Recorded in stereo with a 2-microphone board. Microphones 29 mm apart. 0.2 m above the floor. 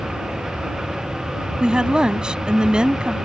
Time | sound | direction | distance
0.0 | an aircraft | 50° right (ahead or behind) | ?
1.6 | a woman speaking | 35° right (ahead or behind) | ?